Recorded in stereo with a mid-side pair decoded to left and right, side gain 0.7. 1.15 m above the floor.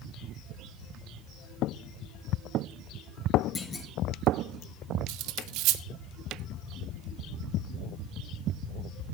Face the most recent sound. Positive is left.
turn(degrees=-65)